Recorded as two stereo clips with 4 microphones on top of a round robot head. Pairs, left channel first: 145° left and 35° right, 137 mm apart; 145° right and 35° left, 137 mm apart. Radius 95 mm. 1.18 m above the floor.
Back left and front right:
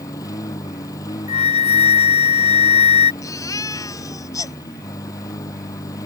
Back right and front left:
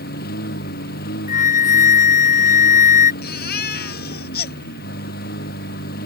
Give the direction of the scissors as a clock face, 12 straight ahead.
I don't hear scissors.